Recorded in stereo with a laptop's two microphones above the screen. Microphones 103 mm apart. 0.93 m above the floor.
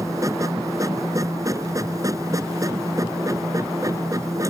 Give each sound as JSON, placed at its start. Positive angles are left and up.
{"t": 0.0, "sound": "a machine running", "side_deg": -30}